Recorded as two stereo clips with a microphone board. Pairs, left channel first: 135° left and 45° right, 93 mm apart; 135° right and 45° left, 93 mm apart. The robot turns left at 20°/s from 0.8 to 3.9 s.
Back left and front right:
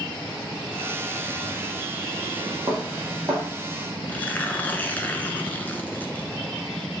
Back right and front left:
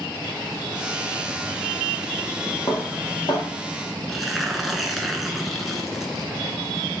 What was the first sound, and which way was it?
Dishes clattering, 95° right.